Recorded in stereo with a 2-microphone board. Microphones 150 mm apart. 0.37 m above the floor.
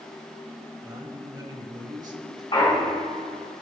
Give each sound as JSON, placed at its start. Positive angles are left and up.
{"t": 0.8, "sound": "a man speaking", "side_deg": -30, "distance_m": 1.7}
{"t": 2.5, "sound": "a clunk", "side_deg": 30, "distance_m": 3.0}